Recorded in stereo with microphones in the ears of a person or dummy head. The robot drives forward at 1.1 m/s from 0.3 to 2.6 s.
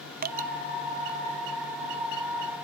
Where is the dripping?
40° right (ahead or behind); by 0.5 s 35° right (ahead or behind).